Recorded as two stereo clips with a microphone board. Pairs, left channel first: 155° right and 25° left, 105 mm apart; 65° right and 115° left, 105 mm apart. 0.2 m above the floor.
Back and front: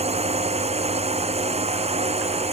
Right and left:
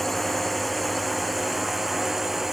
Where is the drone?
20° left; by 2.5 s 25° left.